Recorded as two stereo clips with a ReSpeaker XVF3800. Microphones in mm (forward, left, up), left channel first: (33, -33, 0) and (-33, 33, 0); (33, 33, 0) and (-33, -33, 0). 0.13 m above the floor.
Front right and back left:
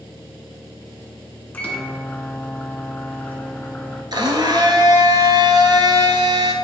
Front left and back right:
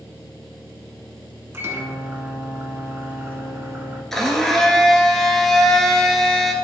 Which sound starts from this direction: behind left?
A blender, at 4.1 s.